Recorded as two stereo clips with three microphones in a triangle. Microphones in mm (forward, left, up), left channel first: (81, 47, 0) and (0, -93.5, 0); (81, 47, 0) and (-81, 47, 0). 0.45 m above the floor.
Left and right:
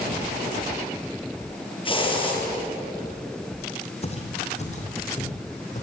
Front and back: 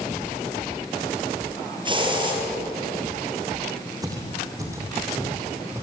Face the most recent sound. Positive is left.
turn(degrees=105)